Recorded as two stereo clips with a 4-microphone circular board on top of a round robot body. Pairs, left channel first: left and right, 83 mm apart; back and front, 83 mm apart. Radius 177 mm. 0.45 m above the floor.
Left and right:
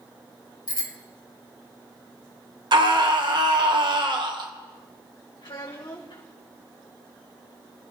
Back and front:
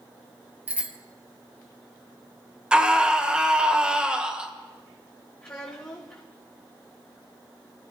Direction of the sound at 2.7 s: 75° right.